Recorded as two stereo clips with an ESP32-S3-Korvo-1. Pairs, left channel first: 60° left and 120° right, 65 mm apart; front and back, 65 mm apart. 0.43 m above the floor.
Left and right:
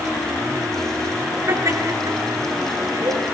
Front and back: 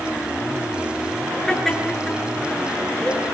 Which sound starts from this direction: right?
Laughter, at 1.5 s.